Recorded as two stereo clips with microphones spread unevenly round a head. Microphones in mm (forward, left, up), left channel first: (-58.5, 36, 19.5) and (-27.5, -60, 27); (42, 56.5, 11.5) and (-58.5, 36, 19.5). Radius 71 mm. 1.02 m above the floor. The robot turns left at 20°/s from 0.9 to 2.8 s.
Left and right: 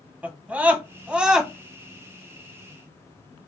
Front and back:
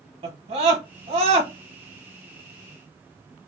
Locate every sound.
0.2 s a scream: 150° right, 0.6 m; by 1.5 s 160° right, 0.6 m